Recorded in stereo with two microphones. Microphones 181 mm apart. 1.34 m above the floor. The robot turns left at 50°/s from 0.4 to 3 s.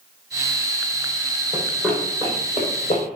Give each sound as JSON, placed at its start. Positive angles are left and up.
{"t": 1.5, "sound": "running footsteps", "side_deg": -10, "distance_m": 2.0}